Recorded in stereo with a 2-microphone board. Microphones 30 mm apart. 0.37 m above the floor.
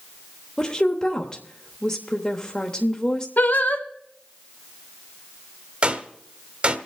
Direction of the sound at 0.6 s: 25° left (ahead or behind).